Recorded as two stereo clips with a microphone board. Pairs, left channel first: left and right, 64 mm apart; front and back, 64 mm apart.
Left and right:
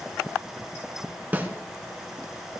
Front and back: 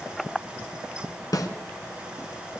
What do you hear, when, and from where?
1.3 s a snare drum: 25° right, 1.4 m